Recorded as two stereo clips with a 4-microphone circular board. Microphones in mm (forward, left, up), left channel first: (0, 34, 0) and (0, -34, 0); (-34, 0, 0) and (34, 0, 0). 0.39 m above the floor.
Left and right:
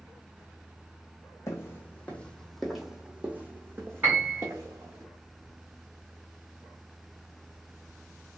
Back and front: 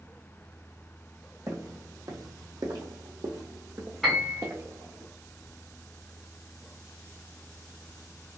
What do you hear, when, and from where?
1.5 s footsteps: 40° left, 1.0 m; by 5.0 s 55° right, 1.6 m
4.0 s a piano: 85° right, 1.5 m